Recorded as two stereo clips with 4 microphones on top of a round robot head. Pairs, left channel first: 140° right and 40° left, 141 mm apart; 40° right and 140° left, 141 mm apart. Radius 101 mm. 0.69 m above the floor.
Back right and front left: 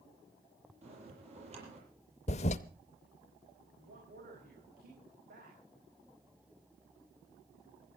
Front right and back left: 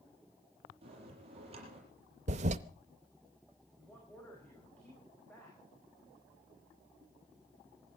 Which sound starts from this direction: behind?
A toilet flushing, at 2.3 s.